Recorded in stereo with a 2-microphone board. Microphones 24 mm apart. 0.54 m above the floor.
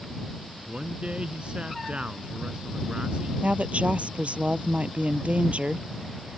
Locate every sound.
0.7 s a man speaking: 55° right (ahead or behind)
3.4 s a woman speaking: 75° right (ahead or behind)